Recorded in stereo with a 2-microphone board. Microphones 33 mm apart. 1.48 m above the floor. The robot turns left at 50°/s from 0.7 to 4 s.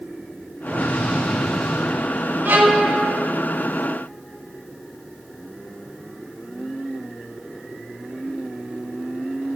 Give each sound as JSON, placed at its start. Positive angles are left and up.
{"t": 0.7, "sound": "an explosion", "azimuth_deg": 50, "distance_m": 3.0}
{"t": 2.5, "sound": "a violin", "side_deg": -60, "distance_m": 1.0}